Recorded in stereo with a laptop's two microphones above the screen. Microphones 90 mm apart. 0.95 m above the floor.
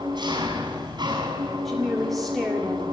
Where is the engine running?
55° right (ahead or behind), 6.5 m.